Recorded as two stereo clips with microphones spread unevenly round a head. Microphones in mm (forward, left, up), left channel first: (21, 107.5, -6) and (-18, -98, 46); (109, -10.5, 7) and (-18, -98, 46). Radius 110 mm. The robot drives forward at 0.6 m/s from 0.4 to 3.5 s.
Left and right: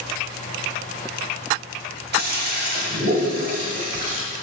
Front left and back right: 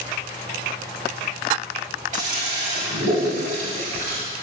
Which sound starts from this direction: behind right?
A toilet flushing, at 2.1 s.